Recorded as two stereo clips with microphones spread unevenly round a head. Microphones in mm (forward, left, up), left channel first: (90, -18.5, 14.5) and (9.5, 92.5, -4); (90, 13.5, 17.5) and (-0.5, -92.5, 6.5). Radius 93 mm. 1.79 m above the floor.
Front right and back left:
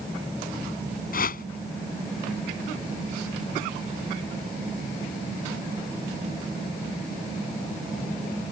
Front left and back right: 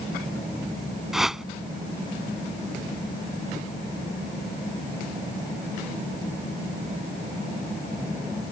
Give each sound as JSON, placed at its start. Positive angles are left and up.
{"t": 1.1, "sound": "a whoosh", "azimuth_deg": -45}